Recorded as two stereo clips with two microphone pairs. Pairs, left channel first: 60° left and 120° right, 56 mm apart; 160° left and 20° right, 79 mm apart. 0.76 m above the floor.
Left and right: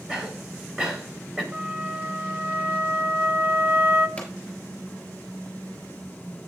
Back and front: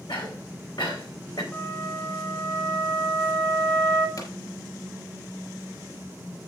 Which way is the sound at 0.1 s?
160° left.